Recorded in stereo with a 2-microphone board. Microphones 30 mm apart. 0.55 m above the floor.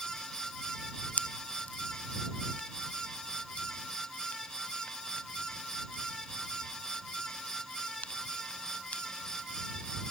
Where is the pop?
70° left (ahead or behind).